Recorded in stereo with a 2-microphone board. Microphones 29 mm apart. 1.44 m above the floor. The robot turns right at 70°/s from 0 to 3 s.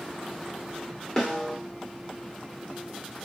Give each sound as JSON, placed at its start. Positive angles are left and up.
{"t": 1.2, "sound": "a snare drum", "side_deg": 15, "distance_m": 1.2}